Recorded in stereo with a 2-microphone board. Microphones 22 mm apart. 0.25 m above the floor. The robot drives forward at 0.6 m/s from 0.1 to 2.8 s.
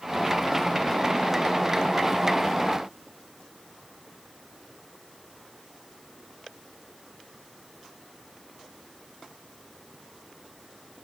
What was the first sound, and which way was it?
Only background noise.